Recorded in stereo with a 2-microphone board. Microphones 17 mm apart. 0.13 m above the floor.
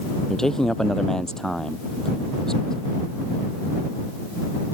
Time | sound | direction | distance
0.3 | a man speaking | 30° left (ahead or behind) | ?